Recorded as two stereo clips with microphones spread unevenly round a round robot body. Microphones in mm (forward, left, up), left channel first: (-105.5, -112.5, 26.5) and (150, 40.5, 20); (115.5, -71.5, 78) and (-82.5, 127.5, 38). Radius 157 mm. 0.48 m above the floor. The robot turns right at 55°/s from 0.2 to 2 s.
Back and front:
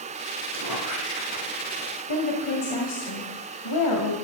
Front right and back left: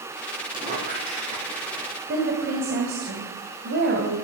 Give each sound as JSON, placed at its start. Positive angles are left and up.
{"t": 0.5, "sound": "a squeak", "azimuth_deg": 60, "distance_m": 6.5}
{"t": 2.1, "sound": "a woman speaking", "azimuth_deg": -170, "distance_m": 2.5}